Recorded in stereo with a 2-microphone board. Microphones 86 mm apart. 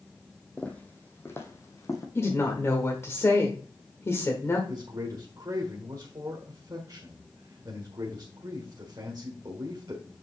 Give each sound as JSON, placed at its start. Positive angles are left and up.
{"t": 0.6, "sound": "footsteps", "side_deg": 15, "distance_m": 1.2}
{"t": 2.1, "sound": "a woman speaking", "side_deg": 30, "distance_m": 1.3}
{"t": 4.7, "sound": "a man speaking", "side_deg": -50, "distance_m": 1.5}